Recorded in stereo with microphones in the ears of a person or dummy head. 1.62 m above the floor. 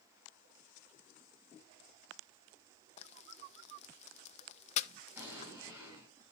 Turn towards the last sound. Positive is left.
turn(degrees=-10)  # may be behind; listen again after turning